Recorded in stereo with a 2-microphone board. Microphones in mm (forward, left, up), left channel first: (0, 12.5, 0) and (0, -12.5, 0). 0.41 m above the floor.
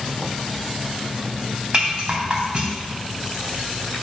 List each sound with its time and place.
1.7 s a rattle: 35° right (ahead or behind), 2.5 m